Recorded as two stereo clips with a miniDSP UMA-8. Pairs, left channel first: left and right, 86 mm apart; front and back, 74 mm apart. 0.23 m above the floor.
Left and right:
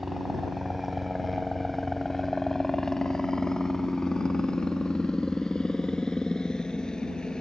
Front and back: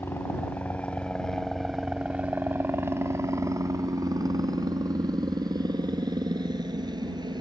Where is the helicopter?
10° right; by 7.4 s 170° left.